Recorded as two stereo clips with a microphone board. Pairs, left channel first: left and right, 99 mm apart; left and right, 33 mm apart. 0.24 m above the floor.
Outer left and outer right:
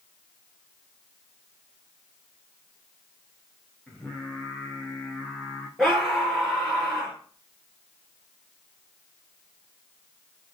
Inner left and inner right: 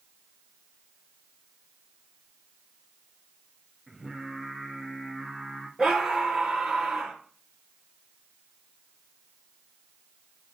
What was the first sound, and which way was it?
Singing, centre (ahead or behind).